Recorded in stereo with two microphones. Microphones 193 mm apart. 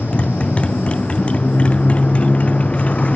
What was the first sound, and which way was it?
A motorcycle, 5° left (ahead or behind).